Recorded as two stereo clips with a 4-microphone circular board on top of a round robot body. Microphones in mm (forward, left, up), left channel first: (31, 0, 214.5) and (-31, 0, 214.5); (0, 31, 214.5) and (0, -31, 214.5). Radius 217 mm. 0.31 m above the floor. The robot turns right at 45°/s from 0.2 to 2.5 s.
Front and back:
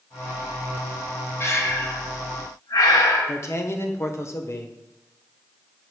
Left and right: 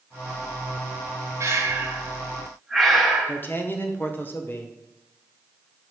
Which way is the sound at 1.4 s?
50° right.